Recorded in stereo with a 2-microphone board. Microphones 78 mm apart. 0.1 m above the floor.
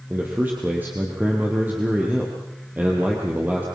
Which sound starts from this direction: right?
A man speaking, at 0.1 s.